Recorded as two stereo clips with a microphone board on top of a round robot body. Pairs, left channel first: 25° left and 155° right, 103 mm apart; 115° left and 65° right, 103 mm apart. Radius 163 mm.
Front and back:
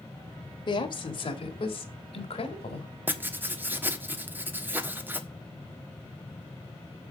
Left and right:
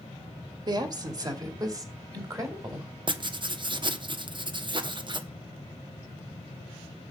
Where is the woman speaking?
20° right, 2 m; by 2.9 s 5° right, 3.5 m.